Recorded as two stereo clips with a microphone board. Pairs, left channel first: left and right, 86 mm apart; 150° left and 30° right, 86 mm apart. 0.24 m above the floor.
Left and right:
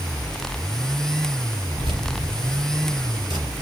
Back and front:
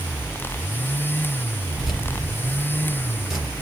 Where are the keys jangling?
115° right, 3.5 m.